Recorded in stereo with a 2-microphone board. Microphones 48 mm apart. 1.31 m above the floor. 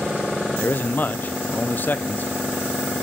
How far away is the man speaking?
About 0.5 m.